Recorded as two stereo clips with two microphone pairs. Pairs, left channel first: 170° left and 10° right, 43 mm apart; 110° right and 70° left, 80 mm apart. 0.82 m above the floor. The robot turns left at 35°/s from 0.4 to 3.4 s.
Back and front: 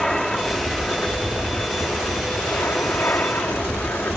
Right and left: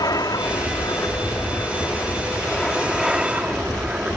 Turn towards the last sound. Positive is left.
turn(degrees=145)